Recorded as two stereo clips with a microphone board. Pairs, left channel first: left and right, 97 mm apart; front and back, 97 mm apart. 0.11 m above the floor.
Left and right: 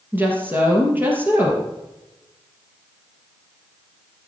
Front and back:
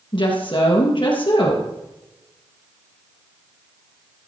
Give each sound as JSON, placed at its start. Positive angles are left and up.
{"t": 0.1, "sound": "a woman speaking", "azimuth_deg": -20, "distance_m": 3.0}